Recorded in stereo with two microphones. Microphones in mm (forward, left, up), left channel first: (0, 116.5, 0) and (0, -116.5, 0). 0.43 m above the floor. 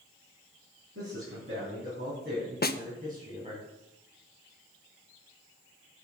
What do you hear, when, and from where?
0.9 s a man speaking: 65° right (ahead or behind), 4.5 m; by 3.6 s 25° right (ahead or behind), 3.5 m
2.6 s a snare drum: 45° left (ahead or behind), 0.5 m